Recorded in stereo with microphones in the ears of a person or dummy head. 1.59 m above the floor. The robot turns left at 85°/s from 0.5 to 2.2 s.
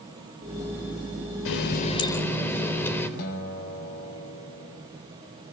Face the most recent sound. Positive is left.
turn(degrees=55)  # may be behind; listen again after turning